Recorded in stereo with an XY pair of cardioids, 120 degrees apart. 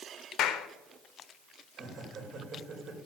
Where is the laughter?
45° right, 4.5 m.